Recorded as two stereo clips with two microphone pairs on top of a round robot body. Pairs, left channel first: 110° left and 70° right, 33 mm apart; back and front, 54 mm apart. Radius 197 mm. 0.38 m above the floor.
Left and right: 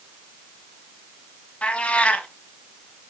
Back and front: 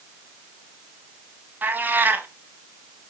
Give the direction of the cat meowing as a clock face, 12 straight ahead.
10 o'clock.